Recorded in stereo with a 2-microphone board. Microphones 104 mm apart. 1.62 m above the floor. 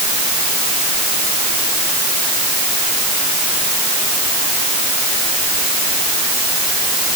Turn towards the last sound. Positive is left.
No sound to turn to.